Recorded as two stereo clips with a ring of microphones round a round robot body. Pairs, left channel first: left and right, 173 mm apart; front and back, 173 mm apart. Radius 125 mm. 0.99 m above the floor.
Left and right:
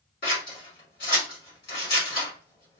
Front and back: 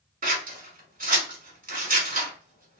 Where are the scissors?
140° left, 1.8 m.